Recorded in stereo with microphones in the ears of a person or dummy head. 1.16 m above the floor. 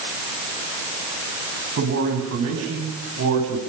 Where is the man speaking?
75° right (ahead or behind), 9 m; by 3.6 s 80° right, 8.5 m.